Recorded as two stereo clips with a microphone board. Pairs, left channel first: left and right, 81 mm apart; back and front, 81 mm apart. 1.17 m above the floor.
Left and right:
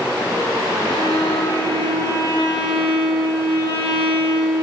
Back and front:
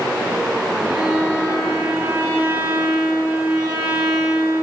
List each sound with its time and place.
0.8 s a violin: 70° left, 4 m